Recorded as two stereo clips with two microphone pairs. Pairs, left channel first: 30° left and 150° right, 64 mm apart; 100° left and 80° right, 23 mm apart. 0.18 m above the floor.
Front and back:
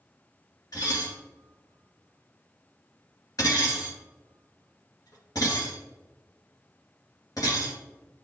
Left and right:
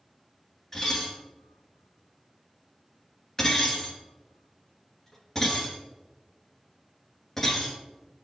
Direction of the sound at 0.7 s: 25° left.